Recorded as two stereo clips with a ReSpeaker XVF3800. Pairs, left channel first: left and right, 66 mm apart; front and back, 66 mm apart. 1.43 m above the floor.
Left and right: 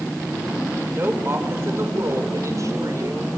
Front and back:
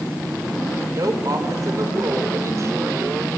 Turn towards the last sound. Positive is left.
turn(degrees=-125)